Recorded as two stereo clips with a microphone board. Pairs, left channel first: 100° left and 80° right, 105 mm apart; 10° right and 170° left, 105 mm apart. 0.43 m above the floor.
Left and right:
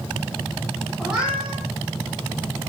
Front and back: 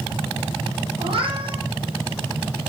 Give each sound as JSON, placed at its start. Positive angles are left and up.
{"t": 1.0, "sound": "a cat meowing", "azimuth_deg": -165, "distance_m": 6.5}